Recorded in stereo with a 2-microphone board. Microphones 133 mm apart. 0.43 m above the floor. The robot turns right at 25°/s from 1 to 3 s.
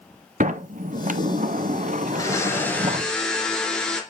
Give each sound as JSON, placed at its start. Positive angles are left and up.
{"t": 0.4, "sound": "a sliding door", "azimuth_deg": -100, "distance_m": 0.6}
{"t": 2.1, "sound": "a blender", "side_deg": 30, "distance_m": 2.0}